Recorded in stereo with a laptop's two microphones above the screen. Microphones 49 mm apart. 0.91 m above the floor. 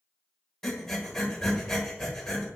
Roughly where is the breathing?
Centre.